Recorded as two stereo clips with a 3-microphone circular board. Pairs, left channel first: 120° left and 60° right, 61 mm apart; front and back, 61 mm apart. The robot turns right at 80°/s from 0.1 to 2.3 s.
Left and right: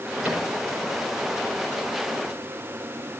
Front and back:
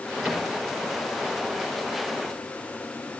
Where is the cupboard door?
110° right, 5.5 m; by 0.5 s 90° right, 5.5 m.